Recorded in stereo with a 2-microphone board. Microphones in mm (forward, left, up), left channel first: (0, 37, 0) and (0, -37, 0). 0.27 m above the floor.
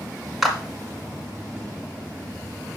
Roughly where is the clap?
Centre.